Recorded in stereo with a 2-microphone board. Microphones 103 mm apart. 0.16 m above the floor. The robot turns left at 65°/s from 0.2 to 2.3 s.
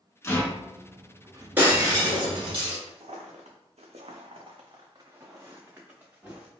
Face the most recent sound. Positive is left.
turn(degrees=-10)  # may be behind; listen again after turning